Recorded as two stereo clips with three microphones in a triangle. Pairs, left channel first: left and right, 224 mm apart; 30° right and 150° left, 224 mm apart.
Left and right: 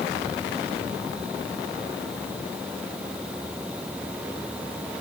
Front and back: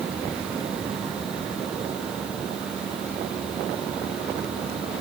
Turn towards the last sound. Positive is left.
No sound to turn to.